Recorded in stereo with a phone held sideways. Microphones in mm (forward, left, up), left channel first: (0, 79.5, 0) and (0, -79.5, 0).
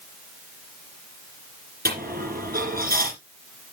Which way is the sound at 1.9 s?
65° right (ahead or behind).